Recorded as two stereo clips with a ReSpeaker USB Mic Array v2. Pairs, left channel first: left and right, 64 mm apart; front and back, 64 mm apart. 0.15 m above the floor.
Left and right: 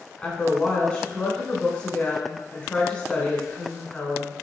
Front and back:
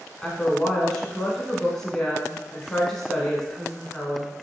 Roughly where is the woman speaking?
Left.